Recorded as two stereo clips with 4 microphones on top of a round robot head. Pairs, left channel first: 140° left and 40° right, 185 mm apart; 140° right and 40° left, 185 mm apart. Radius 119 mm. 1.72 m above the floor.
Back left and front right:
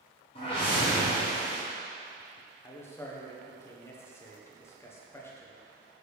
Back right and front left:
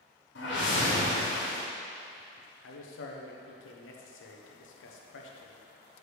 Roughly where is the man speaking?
Behind right.